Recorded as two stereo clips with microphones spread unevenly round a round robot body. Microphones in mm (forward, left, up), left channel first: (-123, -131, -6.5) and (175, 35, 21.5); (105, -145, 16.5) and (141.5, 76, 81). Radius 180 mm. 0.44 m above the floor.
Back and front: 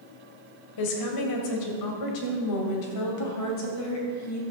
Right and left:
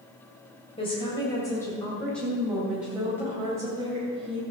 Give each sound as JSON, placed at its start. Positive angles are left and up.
{"t": 0.8, "sound": "a woman speaking", "azimuth_deg": -160, "distance_m": 2.0}